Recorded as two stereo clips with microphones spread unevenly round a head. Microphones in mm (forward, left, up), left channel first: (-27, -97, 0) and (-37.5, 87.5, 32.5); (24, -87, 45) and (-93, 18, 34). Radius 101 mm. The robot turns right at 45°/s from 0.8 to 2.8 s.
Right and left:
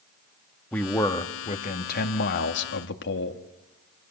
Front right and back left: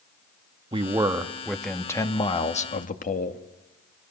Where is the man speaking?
165° right, 1.7 m; by 3.4 s 75° right, 1.7 m.